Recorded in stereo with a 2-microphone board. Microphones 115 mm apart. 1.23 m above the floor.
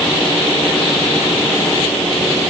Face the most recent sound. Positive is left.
No sound to turn to.